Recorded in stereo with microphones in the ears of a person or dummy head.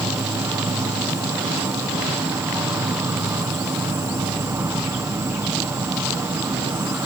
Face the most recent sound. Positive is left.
turn(degrees=-5)  # may be behind; listen again after turning